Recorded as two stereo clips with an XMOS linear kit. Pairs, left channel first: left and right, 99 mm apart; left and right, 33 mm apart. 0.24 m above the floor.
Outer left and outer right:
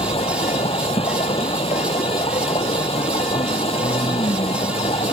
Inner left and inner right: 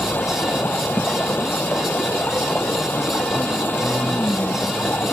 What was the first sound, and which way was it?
Running water, 80° left.